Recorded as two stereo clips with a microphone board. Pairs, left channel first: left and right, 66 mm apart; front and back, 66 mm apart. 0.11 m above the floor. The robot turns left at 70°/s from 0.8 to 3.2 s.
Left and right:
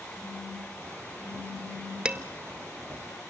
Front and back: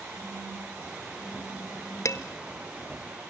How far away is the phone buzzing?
About 6.5 m.